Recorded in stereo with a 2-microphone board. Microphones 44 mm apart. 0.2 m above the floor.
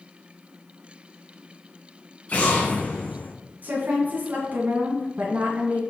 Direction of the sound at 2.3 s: 30° left (ahead or behind).